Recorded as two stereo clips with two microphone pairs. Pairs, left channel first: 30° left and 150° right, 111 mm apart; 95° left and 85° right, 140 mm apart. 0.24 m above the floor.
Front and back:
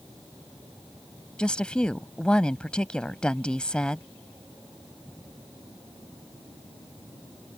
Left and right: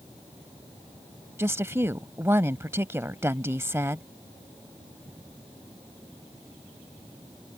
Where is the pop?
No pop in this recording.